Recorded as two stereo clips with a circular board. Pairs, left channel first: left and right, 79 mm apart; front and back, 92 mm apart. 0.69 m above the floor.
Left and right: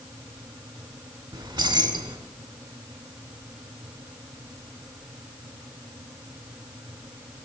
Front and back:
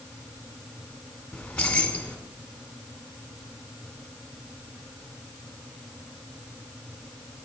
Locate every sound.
1.3 s keys jangling: 80° right, 1.5 m